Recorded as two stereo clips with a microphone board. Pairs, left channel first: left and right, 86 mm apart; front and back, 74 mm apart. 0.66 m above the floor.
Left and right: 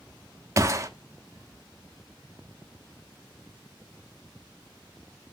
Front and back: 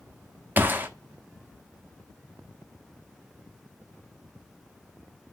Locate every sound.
0.6 s a gunshot: 125° right, 0.7 m